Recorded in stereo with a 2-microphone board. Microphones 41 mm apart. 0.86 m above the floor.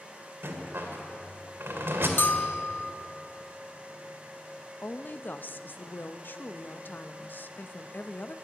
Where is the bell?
65° left (ahead or behind), 0.5 m.